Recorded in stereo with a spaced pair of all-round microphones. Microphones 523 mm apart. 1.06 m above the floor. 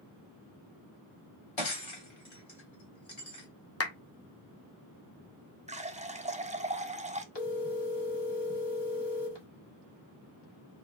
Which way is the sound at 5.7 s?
15° right (ahead or behind).